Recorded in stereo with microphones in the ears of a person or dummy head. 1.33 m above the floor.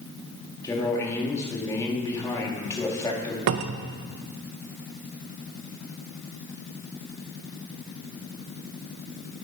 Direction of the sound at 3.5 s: 50° right (ahead or behind).